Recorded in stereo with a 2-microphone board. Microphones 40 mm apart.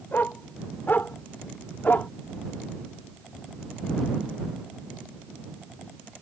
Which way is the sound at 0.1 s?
55° left (ahead or behind).